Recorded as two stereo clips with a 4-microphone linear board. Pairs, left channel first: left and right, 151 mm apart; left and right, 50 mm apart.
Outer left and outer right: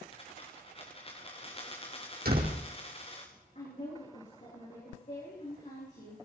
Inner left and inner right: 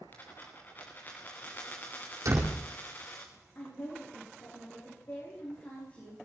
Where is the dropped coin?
35° left (ahead or behind), 4 m.